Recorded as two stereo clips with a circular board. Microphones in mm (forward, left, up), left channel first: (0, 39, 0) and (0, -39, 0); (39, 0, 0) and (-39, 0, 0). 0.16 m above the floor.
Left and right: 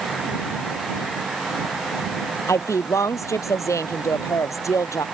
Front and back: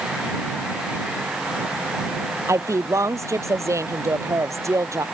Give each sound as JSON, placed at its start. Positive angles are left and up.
{"t": 2.5, "sound": "a woman speaking", "azimuth_deg": 135}